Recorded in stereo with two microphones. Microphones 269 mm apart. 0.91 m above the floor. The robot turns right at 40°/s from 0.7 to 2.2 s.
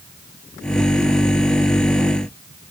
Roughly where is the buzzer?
I don't hear a buzzer.